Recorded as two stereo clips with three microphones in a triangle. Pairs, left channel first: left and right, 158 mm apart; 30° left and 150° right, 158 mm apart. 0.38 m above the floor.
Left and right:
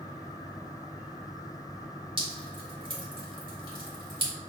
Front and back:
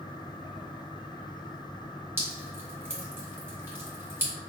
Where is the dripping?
90° right, 1.5 m.